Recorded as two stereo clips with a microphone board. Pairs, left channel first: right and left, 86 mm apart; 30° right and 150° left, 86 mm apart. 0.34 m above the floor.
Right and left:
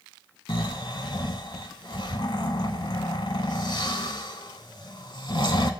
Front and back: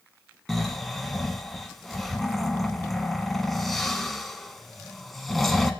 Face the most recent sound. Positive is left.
turn(degrees=-120)